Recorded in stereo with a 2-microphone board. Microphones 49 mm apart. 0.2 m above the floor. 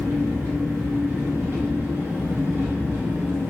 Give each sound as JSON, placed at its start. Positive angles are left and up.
{"t": 0.0, "sound": "an engine running", "side_deg": -45, "distance_m": 1.2}